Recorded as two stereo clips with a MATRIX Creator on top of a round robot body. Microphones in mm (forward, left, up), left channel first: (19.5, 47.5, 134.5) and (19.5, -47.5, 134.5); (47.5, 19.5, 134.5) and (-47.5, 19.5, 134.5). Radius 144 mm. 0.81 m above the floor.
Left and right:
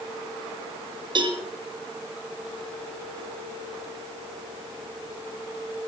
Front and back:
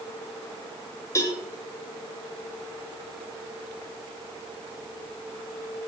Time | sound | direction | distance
1.1 | a cowbell | 55° right | 2 m